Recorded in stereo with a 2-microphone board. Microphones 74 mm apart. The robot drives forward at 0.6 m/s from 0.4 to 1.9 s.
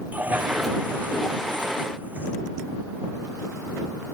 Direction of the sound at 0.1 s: 25° right (ahead or behind).